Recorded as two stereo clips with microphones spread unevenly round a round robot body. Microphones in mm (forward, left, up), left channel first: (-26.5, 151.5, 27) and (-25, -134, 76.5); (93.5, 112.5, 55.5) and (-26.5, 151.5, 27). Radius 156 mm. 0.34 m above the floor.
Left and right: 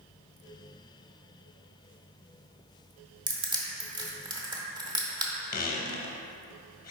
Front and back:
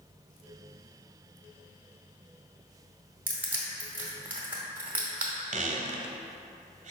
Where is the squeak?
150° left, 0.7 m.